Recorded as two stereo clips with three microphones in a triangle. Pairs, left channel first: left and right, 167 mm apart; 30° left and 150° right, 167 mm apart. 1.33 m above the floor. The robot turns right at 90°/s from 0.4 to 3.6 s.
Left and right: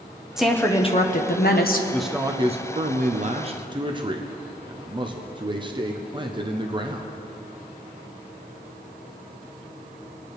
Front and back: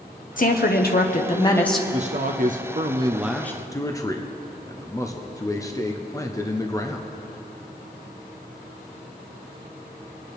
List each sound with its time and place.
0.4 s a woman speaking: 5° right, 0.9 m; by 1.8 s 125° left, 0.9 m
1.9 s a man speaking: 170° left, 0.7 m; by 7.1 s 40° right, 0.7 m